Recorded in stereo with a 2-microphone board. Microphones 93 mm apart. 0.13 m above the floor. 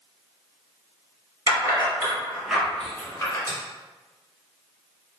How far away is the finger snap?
About 1.8 m.